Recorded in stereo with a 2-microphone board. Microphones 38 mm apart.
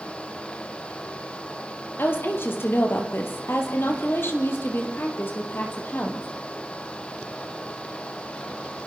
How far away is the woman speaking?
About 4 m.